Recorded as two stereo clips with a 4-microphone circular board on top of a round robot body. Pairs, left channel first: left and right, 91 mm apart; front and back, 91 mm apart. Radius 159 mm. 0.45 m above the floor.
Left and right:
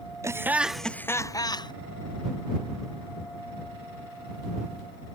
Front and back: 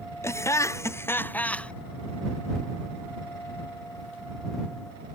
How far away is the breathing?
No breathing in this recording.